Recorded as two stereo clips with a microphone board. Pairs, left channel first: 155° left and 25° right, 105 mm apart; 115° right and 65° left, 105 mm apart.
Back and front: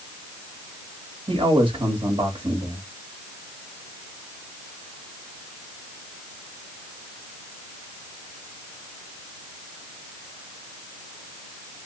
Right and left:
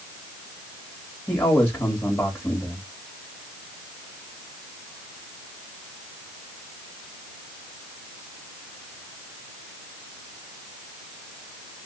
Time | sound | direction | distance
1.3 | a man speaking | 35° right | 1.4 m